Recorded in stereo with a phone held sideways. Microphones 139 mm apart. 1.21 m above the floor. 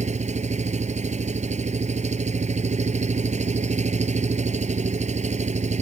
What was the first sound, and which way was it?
An engine running, 55° right (ahead or behind).